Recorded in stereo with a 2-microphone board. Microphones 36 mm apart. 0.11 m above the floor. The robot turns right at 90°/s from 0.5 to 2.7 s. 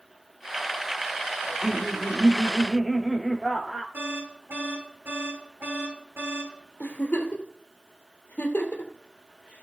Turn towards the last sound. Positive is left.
turn(degrees=55)  # may be behind; listen again after turning